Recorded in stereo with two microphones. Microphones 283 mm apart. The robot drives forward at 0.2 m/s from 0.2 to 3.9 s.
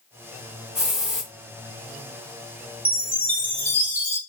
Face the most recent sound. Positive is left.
turn(degrees=-40)  # may be behind; listen again after turning